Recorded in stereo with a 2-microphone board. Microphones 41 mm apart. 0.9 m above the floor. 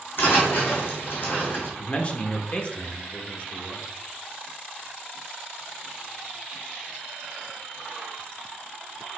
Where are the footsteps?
60° left (ahead or behind), 1.9 m; by 1.7 s 55° left (ahead or behind), 1.9 m.